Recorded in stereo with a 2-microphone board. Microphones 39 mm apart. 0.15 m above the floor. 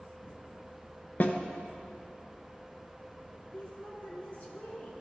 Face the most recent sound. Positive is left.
turn(degrees=40)  # may be behind; listen again after turning